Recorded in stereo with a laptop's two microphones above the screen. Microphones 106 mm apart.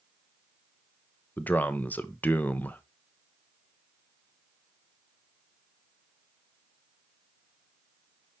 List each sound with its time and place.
1.4 s a man speaking: 15° left (ahead or behind), 0.7 m